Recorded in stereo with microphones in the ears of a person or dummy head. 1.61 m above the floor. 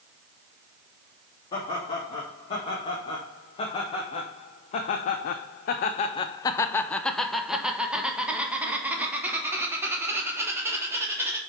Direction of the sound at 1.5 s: 30° left (ahead or behind).